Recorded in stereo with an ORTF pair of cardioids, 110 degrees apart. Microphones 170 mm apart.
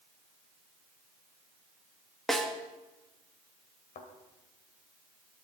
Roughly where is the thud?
Ahead left.